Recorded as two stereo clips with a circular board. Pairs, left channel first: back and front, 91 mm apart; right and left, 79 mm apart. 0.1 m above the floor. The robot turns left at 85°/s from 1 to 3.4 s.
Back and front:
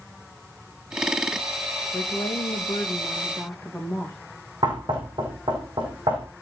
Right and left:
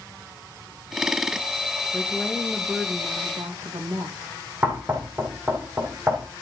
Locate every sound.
1.9 s a woman speaking: 145° right, 4.5 m; by 4.2 s 90° left, 4.5 m
4.6 s knocking: 30° left, 4.5 m